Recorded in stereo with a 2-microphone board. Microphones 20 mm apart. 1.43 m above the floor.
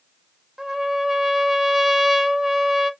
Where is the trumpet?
20° right (ahead or behind), 0.5 m.